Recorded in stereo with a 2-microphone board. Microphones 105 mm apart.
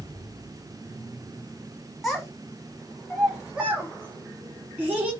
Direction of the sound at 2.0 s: Centre (ahead or behind).